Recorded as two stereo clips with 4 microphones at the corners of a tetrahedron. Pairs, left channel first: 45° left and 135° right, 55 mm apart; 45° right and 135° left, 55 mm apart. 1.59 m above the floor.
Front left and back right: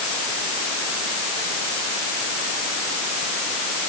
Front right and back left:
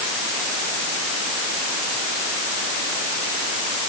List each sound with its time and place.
Only background noise.